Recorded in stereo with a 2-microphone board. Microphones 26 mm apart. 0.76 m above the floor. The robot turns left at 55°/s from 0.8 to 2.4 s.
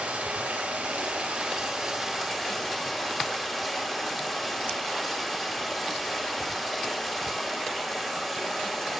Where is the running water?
100° right, 2.0 m; by 9.0 s 175° left, 2.0 m.